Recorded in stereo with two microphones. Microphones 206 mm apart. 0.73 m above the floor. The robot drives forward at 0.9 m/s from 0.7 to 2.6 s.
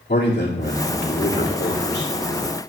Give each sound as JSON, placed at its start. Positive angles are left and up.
{"t": 0.1, "sound": "a man speaking", "side_deg": 55, "distance_m": 2.0}